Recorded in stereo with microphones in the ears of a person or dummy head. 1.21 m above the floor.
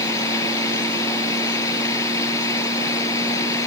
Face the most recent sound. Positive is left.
turn(degrees=20)  # may be behind; listen again after turning